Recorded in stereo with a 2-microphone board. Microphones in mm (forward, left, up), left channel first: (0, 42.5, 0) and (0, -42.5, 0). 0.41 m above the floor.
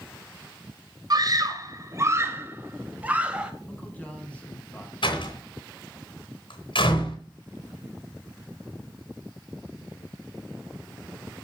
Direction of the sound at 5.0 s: 75° left (ahead or behind).